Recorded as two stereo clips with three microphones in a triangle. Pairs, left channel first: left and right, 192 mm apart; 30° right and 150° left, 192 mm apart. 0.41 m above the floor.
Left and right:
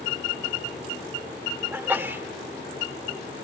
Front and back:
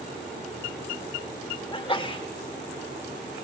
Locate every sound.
1.7 s a sneeze: 25° right, 0.8 m